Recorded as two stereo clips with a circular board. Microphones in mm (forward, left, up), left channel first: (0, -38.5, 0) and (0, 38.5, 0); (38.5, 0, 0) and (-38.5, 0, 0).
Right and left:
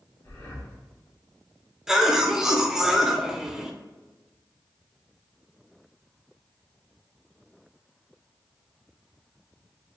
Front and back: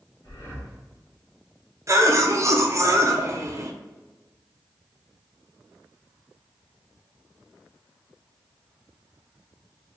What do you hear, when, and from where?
0.2 s breathing: 45° right, 1.8 m
1.9 s a cough: 170° left, 0.6 m